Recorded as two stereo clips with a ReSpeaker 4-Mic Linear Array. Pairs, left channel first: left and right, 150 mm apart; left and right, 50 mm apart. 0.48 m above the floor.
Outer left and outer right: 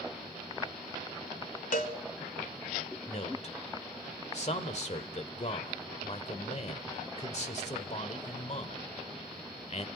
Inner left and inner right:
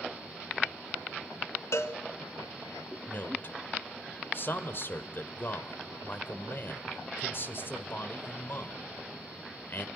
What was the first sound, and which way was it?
A cowbell, 70° left (ahead or behind).